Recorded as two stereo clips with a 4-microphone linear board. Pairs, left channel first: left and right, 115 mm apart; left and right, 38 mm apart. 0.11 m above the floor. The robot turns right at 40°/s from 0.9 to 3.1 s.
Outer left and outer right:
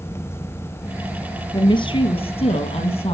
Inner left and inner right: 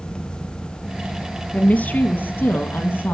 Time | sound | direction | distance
1.5 | a woman speaking | 45° left | 3 m